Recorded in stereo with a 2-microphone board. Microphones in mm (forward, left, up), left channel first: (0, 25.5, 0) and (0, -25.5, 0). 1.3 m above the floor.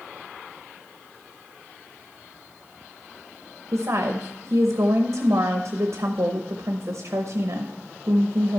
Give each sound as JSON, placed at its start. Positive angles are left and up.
{"t": 3.7, "sound": "a woman speaking", "side_deg": -70, "distance_m": 0.9}